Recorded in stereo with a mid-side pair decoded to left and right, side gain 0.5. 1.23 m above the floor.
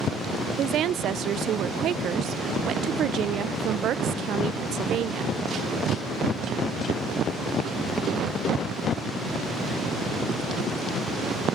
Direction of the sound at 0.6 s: 60° right.